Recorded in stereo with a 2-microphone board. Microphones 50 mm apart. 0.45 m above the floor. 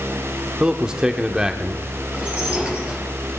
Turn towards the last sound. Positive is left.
turn(degrees=-30)  # may be behind; listen again after turning